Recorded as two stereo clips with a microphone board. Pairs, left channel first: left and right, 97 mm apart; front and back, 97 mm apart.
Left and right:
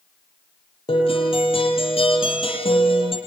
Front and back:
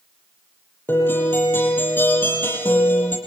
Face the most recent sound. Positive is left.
turn(degrees=70)